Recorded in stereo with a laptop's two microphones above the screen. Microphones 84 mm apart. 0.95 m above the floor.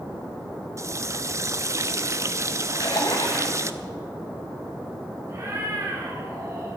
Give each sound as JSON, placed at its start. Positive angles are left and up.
{"t": 0.8, "sound": "a running tap", "side_deg": -40, "distance_m": 0.5}
{"t": 2.7, "sound": "a splash", "side_deg": 75, "distance_m": 8.0}
{"t": 5.3, "sound": "a cat meowing", "side_deg": -40, "distance_m": 4.5}